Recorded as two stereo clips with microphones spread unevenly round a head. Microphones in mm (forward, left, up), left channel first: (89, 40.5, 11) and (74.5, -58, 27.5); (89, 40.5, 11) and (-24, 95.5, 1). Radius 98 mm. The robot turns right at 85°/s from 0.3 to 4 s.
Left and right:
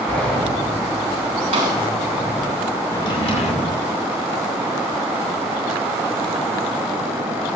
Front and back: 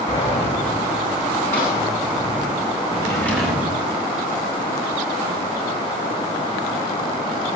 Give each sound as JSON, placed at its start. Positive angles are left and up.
{"t": 0.1, "sound": "a sliding door", "azimuth_deg": 5, "distance_m": 3.5}
{"t": 1.5, "sound": "a snare drum", "azimuth_deg": -105, "distance_m": 3.5}
{"t": 2.9, "sound": "a drawer", "azimuth_deg": 20, "distance_m": 4.0}